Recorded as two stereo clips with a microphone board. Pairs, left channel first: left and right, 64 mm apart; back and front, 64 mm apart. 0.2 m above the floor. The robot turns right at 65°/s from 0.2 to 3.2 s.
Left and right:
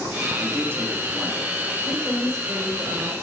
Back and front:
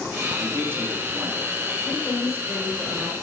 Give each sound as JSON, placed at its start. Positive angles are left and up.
{"t": 0.4, "sound": "a man speaking", "azimuth_deg": -65, "distance_m": 2.0}
{"t": 1.9, "sound": "a woman speaking", "azimuth_deg": -140, "distance_m": 3.0}